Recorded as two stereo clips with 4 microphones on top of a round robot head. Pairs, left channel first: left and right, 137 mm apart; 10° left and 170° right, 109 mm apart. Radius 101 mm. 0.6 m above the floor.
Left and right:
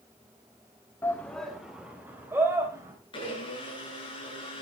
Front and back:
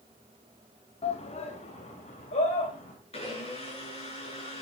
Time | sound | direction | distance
1.0 | a shout | 20° left | 1.8 m
3.1 | a blender | 35° left | 7.5 m